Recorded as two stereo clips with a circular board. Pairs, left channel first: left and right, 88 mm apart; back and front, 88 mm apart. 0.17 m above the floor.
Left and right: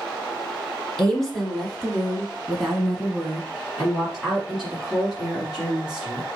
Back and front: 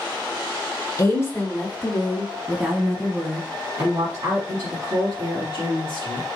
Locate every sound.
1.0 s a woman speaking: 175° left, 1.7 m; by 6.2 s 5° right, 3.5 m